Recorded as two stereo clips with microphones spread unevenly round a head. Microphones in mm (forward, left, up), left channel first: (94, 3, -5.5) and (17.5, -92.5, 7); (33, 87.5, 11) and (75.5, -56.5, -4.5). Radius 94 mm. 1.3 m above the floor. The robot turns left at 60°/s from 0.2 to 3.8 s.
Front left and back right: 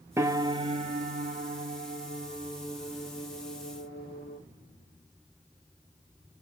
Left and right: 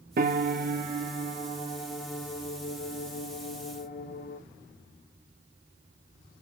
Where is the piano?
55° right, 0.6 m; by 4.4 s 85° left, 0.6 m.